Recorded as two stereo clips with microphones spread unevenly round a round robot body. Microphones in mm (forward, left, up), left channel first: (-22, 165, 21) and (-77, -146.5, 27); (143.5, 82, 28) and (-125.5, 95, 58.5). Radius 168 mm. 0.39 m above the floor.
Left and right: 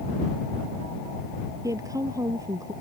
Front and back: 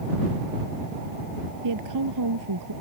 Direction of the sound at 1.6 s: Straight behind.